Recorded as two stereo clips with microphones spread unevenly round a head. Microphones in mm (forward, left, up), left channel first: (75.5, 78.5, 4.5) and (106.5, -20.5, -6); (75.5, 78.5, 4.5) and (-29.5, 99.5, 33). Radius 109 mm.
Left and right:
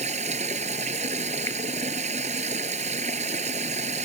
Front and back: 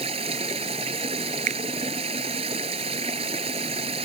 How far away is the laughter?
No laughter in this recording.